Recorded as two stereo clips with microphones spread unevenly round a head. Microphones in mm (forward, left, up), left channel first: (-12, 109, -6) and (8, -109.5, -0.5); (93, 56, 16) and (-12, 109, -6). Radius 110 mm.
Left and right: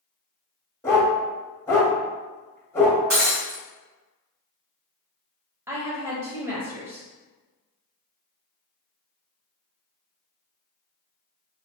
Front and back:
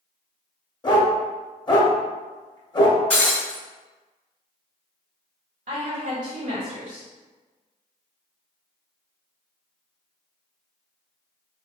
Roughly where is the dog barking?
Ahead.